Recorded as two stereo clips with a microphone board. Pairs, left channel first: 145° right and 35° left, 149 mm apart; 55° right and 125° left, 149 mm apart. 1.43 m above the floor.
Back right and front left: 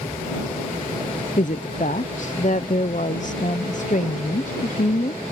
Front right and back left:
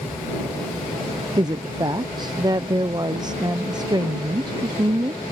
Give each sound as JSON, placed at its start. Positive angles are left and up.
{"t": 1.4, "sound": "a woman speaking", "azimuth_deg": -175}